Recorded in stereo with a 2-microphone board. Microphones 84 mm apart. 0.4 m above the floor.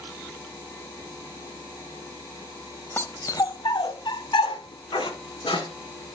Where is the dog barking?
30° left (ahead or behind), 0.5 m; by 6.2 s 80° left, 1.9 m.